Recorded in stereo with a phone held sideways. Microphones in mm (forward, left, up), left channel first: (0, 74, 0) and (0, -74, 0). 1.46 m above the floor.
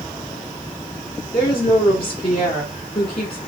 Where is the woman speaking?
40° left (ahead or behind), 5 m.